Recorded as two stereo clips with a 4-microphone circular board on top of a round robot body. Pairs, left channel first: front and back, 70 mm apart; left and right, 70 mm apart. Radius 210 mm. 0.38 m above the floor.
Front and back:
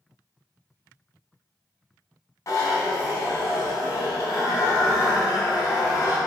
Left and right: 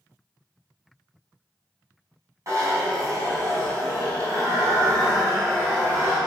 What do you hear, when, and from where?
2.5 s a zipper: 45° right, 4 m